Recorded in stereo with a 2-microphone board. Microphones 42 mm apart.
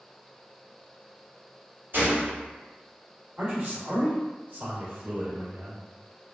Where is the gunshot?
55° right (ahead or behind), 1.4 m.